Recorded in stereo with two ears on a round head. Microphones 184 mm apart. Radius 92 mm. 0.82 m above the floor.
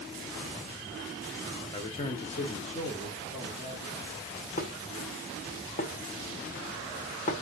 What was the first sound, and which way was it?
A man speaking, 25° left (ahead or behind).